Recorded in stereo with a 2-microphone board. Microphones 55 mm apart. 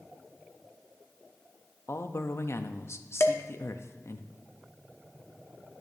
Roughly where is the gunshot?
No gunshot in this recording.